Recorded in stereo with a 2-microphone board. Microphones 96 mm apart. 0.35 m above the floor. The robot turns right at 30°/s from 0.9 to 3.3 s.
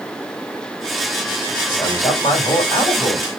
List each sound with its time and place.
1.7 s a man speaking: 70° left, 2 m; by 3.3 s 120° left, 2 m